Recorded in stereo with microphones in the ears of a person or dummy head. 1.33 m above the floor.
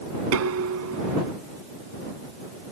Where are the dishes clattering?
85° right.